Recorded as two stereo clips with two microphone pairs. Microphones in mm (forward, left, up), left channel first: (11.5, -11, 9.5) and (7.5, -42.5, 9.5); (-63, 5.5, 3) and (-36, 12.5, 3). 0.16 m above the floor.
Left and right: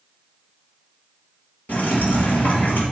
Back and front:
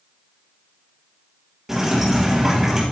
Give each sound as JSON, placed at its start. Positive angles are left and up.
{"t": 1.7, "sound": "dripping", "azimuth_deg": 100, "distance_m": 4.5}